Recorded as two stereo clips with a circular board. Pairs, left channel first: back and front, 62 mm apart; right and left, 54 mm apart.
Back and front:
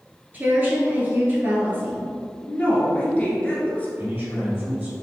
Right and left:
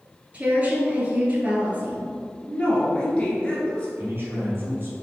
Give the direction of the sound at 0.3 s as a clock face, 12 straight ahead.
11 o'clock.